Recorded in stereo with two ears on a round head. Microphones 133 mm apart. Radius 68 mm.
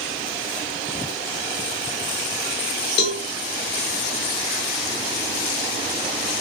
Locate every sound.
3.0 s a cowbell: 85° left, 0.7 m